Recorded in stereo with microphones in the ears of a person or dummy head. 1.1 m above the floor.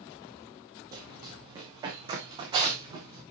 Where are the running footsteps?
15° right (ahead or behind), 2 m; by 3.2 s 20° right (ahead or behind), 3.5 m.